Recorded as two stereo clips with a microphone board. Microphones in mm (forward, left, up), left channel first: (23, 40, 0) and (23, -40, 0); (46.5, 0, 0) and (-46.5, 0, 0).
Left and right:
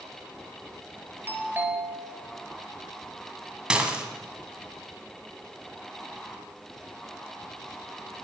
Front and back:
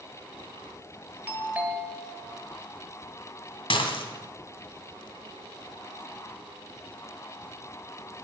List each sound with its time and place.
1.3 s a doorbell: 125° right, 1.6 m
3.7 s dishes clattering: 10° right, 1.7 m